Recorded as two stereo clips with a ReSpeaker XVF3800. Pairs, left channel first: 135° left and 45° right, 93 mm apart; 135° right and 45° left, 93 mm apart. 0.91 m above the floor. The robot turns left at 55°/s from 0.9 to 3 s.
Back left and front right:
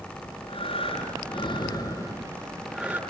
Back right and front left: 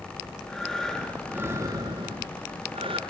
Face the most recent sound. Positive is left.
turn(degrees=25)